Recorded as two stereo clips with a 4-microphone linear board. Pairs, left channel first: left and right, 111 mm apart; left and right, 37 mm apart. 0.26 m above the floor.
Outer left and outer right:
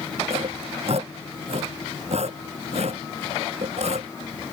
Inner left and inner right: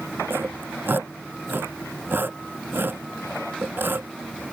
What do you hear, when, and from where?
0.3 s sawing: 70° right (ahead or behind)